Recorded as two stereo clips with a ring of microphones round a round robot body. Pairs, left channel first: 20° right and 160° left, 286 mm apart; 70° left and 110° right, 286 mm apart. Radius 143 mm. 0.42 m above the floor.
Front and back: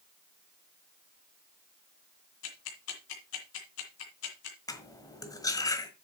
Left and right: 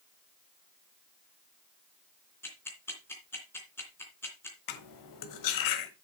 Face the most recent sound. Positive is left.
turn(degrees=55)